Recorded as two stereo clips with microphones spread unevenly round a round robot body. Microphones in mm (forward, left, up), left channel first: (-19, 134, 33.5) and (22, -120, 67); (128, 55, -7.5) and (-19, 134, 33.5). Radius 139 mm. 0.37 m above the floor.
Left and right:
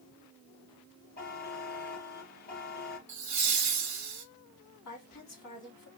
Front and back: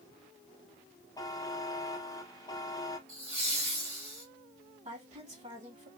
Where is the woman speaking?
100° left, 3.5 m.